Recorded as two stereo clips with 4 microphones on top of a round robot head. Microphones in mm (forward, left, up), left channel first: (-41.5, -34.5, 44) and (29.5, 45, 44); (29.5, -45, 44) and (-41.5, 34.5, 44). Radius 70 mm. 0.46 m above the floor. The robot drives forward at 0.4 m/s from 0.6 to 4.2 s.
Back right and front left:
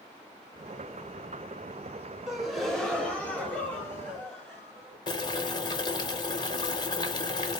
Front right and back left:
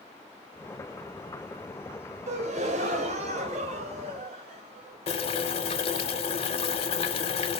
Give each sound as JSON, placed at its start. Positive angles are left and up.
{"t": 2.3, "sound": "a gasp", "azimuth_deg": 130, "distance_m": 0.8}
{"t": 5.1, "sound": "boiling", "azimuth_deg": -80, "distance_m": 0.7}